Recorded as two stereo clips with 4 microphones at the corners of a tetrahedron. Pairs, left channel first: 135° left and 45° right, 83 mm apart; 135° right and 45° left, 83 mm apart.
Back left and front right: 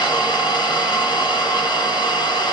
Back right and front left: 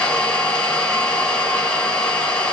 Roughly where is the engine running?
Behind left.